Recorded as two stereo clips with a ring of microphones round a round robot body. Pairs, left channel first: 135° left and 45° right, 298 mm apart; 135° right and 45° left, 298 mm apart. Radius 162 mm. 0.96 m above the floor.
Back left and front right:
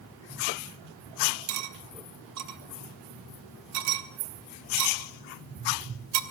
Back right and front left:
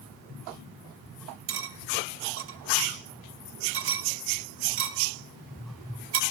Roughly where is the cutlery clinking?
Ahead.